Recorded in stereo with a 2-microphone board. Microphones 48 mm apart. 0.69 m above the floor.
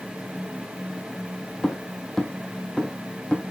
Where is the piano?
No piano in this recording.